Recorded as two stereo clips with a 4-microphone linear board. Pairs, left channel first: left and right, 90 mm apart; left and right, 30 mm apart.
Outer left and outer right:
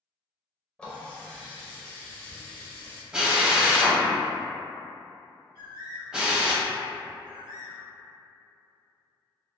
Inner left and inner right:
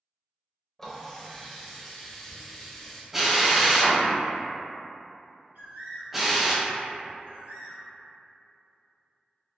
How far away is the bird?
About 1.8 m.